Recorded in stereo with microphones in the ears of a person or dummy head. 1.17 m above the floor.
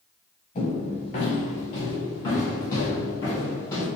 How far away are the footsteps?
About 1.3 m.